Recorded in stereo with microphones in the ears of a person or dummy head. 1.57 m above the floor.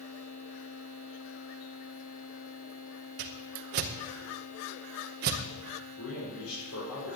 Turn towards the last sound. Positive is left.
turn(degrees=90)